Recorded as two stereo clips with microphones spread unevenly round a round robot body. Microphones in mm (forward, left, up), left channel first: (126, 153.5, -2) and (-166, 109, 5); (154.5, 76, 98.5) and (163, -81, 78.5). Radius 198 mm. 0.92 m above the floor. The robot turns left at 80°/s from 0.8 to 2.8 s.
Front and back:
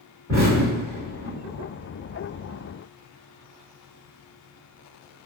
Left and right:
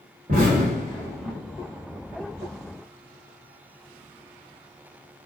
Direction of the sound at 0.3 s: 60° right.